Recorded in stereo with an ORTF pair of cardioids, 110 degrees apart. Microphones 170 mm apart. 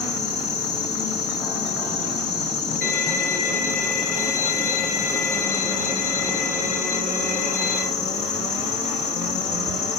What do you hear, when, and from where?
0.0 s an insect: 70° left, 3.5 m
2.8 s a violin: 60° left, 3 m